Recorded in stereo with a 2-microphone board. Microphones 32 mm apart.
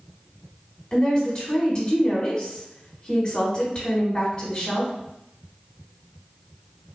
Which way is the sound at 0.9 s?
30° left (ahead or behind).